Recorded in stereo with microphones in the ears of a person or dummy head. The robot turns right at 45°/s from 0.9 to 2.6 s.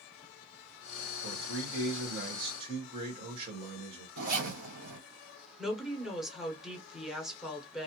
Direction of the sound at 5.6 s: Centre (ahead or behind).